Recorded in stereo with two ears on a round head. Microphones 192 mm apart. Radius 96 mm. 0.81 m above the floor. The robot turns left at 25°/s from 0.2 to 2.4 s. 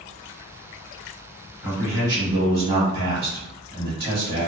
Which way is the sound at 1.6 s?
5° right (ahead or behind).